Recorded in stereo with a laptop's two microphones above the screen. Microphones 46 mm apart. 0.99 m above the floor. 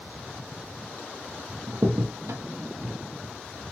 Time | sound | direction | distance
1.7 | a crack | 80° right | 0.7 m